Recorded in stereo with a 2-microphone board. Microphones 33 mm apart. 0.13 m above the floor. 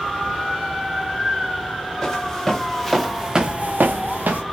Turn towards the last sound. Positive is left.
turn(degrees=-70)  # may be behind; listen again after turning